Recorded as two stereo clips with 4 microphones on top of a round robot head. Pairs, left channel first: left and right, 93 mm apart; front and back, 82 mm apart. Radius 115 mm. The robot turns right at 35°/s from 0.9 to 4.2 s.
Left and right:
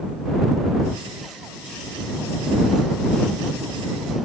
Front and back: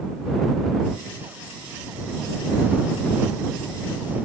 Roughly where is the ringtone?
No ringtone in this recording.